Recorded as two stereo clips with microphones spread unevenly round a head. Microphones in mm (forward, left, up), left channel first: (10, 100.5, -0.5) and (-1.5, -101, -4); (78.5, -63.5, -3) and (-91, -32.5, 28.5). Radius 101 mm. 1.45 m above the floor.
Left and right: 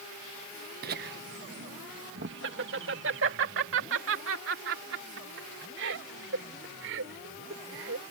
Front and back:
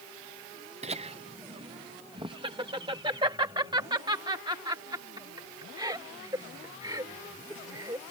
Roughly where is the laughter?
Behind right.